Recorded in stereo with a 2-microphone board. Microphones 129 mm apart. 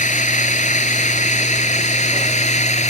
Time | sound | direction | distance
0.0 | a drone | 70° left (ahead or behind) | ?